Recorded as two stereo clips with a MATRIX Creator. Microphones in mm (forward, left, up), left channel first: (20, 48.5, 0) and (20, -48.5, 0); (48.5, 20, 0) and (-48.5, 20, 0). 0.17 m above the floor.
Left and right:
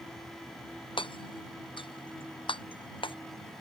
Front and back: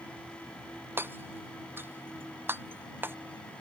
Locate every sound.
1.0 s hammering: 110° left